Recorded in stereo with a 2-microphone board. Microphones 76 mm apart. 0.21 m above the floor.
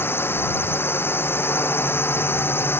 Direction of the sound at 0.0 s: 25° left (ahead or behind).